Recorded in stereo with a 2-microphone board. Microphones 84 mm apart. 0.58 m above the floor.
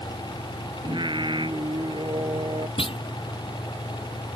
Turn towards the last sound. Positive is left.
turn(degrees=80)